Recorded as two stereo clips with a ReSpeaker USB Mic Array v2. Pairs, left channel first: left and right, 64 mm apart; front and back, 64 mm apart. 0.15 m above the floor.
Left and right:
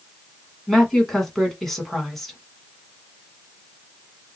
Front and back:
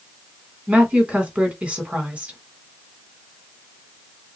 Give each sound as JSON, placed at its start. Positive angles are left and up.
{"t": 0.7, "sound": "a woman speaking", "azimuth_deg": 170, "distance_m": 1.1}